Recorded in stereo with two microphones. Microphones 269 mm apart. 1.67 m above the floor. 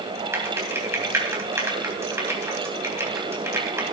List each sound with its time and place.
0.3 s typing on a keyboard: 10° right (ahead or behind), 3 m